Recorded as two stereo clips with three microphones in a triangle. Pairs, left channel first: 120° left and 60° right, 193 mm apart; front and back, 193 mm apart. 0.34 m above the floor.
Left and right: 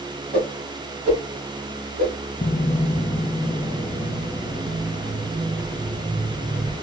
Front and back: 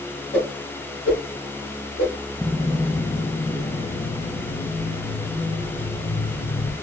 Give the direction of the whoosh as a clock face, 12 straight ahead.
11 o'clock.